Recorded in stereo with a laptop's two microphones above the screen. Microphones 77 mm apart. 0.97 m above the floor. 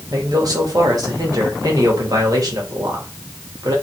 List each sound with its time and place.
0.1 s a man speaking: 55° right (ahead or behind), 1.5 m